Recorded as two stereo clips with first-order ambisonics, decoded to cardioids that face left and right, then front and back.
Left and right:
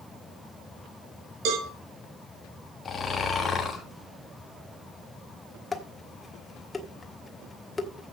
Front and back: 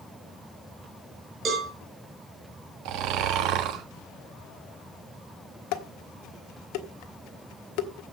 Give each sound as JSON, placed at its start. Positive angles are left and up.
{"t": 1.4, "sound": "a cowbell", "azimuth_deg": -115, "distance_m": 4.0}
{"t": 2.9, "sound": "snoring", "azimuth_deg": 155, "distance_m": 1.9}
{"t": 5.7, "sound": "dishes clattering", "azimuth_deg": 15, "distance_m": 1.2}